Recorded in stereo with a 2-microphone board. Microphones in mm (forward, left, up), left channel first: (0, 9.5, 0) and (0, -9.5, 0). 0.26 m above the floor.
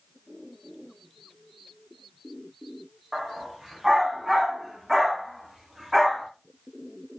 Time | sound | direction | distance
3.1 | a dog barking | 30° right (ahead or behind) | 4.5 m